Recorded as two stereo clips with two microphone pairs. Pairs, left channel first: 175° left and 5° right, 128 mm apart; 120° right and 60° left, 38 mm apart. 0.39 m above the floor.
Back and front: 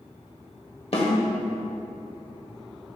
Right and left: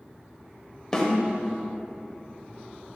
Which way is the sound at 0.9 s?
170° left.